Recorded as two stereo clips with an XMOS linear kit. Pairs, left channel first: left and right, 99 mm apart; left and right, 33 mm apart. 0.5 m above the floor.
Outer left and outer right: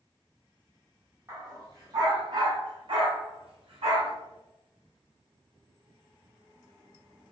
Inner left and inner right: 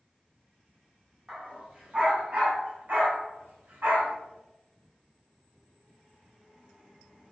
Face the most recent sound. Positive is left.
turn(degrees=-85)